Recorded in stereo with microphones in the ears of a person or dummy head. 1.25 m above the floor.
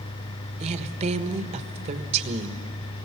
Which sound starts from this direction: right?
A woman speaking, at 0.6 s.